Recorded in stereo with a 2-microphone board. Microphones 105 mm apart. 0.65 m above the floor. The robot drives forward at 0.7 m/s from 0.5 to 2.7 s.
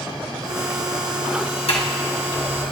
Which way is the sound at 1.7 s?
75° left (ahead or behind).